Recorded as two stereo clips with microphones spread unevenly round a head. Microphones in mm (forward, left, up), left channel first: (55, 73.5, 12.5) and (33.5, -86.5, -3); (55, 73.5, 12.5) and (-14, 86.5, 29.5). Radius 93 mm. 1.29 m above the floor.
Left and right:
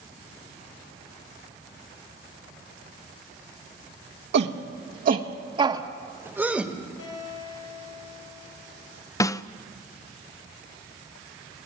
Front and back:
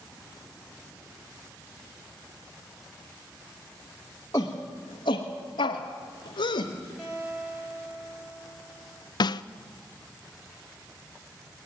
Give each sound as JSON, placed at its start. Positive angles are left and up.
{"t": 4.3, "sound": "a shout", "azimuth_deg": -85, "distance_m": 1.3}
{"t": 7.0, "sound": "a guitar", "azimuth_deg": 90, "distance_m": 8.5}
{"t": 9.2, "sound": "a snare drum", "azimuth_deg": 10, "distance_m": 0.6}